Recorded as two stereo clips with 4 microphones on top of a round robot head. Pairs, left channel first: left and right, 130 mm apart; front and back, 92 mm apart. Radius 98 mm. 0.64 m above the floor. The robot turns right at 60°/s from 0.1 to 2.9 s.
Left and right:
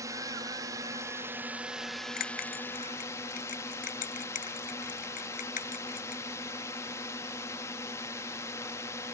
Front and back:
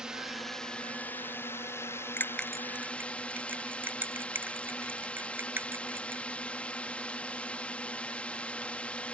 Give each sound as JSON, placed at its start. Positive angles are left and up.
{"t": 0.0, "sound": "a drone", "azimuth_deg": -110}
{"t": 2.2, "sound": "a bell", "azimuth_deg": 65}